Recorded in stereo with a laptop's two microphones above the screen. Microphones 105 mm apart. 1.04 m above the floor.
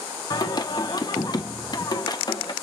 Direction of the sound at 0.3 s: 40° left (ahead or behind).